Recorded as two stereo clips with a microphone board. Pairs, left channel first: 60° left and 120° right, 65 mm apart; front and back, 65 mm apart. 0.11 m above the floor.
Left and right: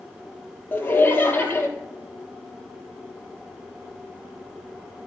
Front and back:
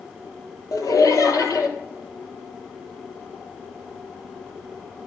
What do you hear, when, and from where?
0.7 s laughter: 5° left, 2.5 m